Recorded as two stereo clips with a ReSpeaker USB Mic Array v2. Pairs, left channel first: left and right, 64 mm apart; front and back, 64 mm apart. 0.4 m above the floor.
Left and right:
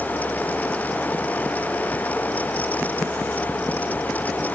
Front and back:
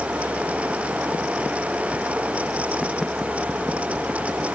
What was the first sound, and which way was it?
Only background noise.